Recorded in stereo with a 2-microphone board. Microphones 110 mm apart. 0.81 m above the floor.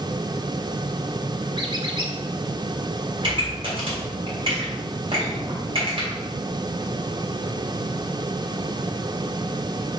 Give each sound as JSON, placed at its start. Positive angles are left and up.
{"t": 1.6, "sound": "a squeak", "side_deg": -45, "distance_m": 0.9}
{"t": 3.2, "sound": "a pop", "side_deg": -55, "distance_m": 2.5}